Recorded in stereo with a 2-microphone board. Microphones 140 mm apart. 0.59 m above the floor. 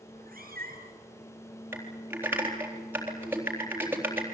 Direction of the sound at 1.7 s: 15° right (ahead or behind).